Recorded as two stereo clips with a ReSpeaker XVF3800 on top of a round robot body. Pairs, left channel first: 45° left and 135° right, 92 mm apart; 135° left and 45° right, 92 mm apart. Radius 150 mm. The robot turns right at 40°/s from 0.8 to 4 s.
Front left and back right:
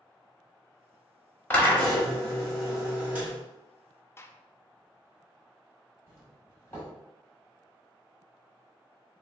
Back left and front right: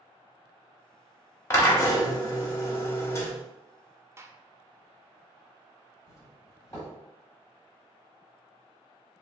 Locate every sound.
1.5 s a drill: 95° left, 1.2 m; by 3.3 s 170° left, 1.2 m
4.2 s a gunshot: straight ahead, 0.5 m
6.1 s a doorbell: 100° left, 1.7 m